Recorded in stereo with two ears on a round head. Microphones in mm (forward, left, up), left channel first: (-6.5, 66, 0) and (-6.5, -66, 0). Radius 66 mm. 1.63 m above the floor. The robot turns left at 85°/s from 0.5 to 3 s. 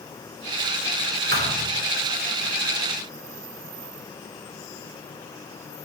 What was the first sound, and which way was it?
A thud, 70° right (ahead or behind).